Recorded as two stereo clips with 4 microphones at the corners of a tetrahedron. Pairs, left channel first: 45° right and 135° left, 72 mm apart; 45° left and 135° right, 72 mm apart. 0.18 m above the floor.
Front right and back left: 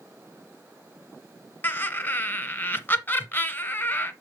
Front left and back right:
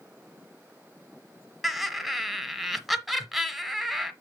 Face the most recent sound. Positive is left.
turn(degrees=-50)